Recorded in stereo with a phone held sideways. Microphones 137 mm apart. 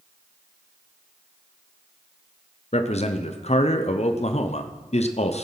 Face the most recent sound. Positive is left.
turn(degrees=50)  # may be behind; listen again after turning